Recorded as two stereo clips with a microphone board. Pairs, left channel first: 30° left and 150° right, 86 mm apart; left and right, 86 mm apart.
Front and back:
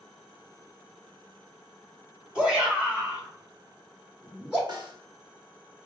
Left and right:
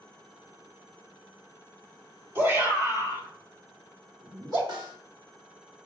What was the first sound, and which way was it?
A shout, 85° right.